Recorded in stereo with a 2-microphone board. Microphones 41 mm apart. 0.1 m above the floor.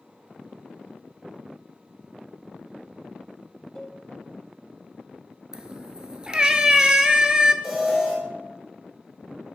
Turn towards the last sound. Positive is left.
turn(degrees=-10)  # may be behind; listen again after turning